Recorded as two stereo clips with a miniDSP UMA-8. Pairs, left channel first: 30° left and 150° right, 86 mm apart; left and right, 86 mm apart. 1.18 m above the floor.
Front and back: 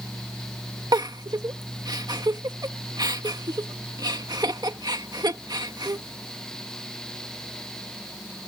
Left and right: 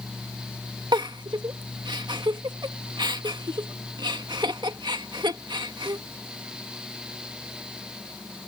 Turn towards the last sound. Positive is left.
turn(degrees=-120)